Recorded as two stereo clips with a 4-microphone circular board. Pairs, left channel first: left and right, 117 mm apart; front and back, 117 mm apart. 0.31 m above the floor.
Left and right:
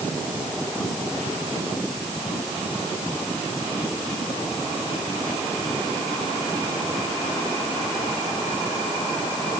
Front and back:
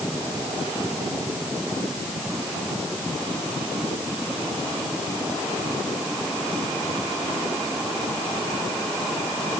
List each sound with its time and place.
Only background noise.